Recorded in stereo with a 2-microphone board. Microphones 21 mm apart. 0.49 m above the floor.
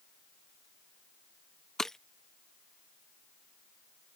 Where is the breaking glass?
15° left (ahead or behind).